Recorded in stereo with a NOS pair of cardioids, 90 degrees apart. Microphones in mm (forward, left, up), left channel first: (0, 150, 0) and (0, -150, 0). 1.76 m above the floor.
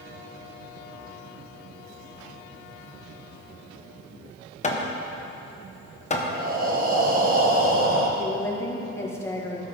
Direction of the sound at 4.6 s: 25° left.